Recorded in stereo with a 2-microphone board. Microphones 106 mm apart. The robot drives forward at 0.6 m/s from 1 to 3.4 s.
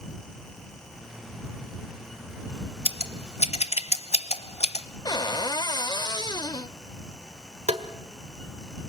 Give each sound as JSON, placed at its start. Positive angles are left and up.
{"t": 2.9, "sound": "scissors", "side_deg": 60, "distance_m": 1.0}
{"t": 5.0, "sound": "a cupboard door", "side_deg": 40, "distance_m": 0.5}
{"t": 7.7, "sound": "tapping", "side_deg": -75, "distance_m": 1.4}